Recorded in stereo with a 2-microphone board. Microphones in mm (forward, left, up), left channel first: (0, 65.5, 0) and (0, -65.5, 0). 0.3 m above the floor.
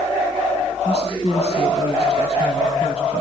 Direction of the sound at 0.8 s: 55° left (ahead or behind).